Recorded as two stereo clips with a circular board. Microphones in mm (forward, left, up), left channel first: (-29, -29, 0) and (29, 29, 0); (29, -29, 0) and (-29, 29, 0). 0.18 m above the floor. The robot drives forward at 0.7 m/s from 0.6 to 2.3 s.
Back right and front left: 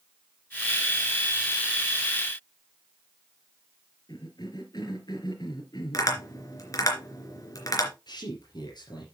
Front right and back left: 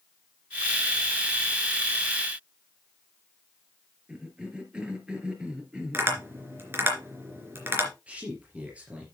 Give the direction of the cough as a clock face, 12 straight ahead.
5 o'clock.